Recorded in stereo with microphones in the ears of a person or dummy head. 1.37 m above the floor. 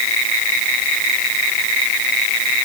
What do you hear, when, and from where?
Only background noise.